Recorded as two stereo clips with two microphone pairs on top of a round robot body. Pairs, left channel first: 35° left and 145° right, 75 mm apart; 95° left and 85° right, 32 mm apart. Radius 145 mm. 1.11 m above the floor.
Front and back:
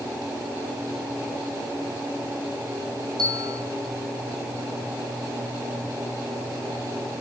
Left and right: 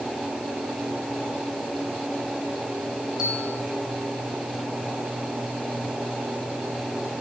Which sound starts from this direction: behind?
A bell, at 3.2 s.